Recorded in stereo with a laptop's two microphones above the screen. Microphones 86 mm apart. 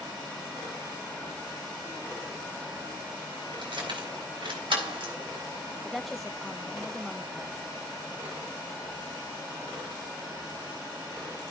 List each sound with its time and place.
3.6 s keys jangling: 75° right (ahead or behind), 4 m; by 5.1 s 85° right, 3 m
5.8 s a woman speaking: centre (ahead or behind), 1.0 m